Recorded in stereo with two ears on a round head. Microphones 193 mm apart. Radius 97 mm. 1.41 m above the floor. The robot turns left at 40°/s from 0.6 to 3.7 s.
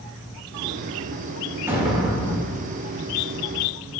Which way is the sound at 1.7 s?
165° right.